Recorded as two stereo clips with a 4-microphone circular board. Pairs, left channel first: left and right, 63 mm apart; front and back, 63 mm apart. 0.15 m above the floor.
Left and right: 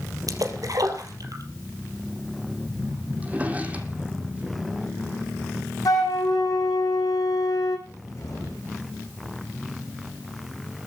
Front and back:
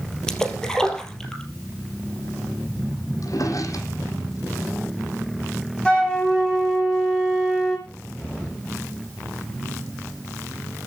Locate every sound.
0.3 s a splash: 80° right, 3 m
3.2 s a drawer: 25° right, 3 m
5.8 s a flute: 75° left, 5.5 m
7.9 s a cupboard door: 65° left, 9 m